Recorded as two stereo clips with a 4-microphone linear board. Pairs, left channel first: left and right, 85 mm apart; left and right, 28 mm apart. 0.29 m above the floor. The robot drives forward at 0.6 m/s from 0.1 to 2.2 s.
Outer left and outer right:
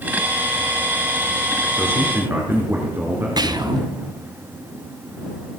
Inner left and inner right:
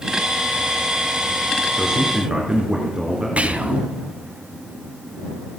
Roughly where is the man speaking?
Right.